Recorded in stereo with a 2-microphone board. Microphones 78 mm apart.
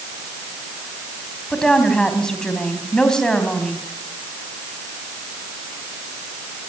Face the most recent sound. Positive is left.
turn(degrees=10)  # may be behind; listen again after turning